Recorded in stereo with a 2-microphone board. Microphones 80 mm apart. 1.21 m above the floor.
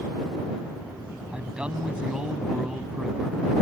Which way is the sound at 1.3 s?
15° right (ahead or behind).